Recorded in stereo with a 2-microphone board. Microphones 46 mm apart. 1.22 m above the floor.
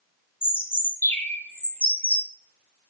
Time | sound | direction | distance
0.4 | a bird | 40° left (ahead or behind) | 0.7 m